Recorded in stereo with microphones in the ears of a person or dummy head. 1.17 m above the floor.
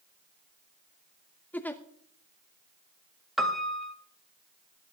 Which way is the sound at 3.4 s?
Centre (ahead or behind).